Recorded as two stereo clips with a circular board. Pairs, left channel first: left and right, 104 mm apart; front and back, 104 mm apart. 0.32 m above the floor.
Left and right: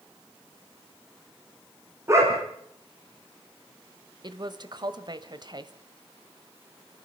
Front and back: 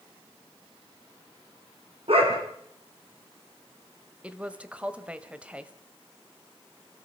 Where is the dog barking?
155° right, 5.5 m.